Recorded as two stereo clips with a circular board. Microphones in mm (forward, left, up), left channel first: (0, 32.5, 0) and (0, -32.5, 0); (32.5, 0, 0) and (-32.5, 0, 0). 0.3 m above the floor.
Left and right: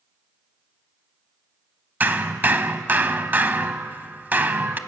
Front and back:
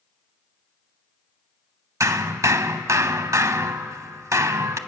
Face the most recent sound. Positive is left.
turn(degrees=-150)